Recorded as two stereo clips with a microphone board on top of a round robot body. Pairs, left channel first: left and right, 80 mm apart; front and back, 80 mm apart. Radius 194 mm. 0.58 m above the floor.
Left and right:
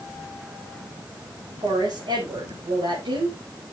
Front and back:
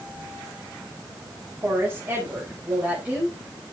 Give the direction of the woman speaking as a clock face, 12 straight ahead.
4 o'clock.